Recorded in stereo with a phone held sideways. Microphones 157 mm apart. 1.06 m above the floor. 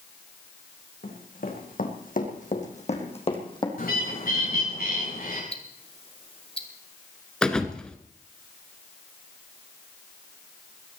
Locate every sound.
1.0 s running footsteps: 75° left (ahead or behind), 4.5 m; by 3.7 s 30° left (ahead or behind), 3 m
3.8 s a bird: 85° left, 7 m
5.5 s ticking: 40° left (ahead or behind), 2 m
7.4 s a thud: 5° left (ahead or behind), 1.5 m